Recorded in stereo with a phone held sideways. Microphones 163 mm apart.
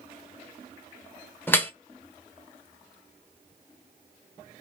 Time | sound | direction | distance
1.5 | dripping | 10° left (ahead or behind) | 0.8 m